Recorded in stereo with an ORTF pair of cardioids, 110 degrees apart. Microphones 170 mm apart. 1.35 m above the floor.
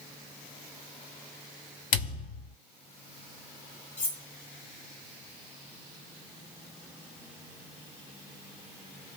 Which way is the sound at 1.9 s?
50° left.